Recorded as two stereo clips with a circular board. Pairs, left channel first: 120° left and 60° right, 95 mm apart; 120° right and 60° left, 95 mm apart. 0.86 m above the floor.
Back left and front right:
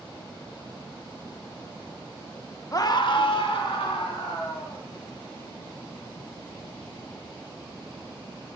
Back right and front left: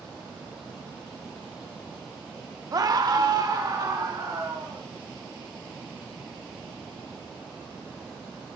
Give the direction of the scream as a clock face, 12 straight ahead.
9 o'clock.